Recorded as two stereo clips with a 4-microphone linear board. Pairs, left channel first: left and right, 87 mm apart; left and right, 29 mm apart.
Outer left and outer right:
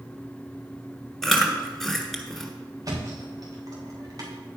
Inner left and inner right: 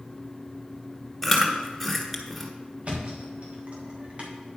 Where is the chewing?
5° left (ahead or behind), 1.4 m.